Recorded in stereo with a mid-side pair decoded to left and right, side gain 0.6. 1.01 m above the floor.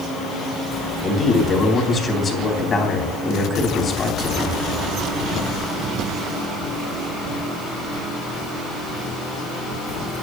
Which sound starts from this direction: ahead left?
A man speaking, at 1.0 s.